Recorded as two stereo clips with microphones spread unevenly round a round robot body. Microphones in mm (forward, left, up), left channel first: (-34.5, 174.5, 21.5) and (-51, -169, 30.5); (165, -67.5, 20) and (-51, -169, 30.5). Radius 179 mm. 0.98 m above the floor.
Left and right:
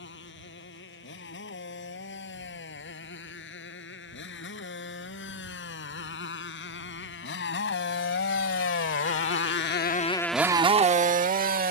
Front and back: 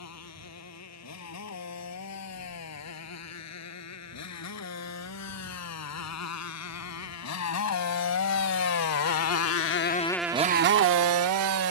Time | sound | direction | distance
0.0 | a motorcycle | 25° left | ?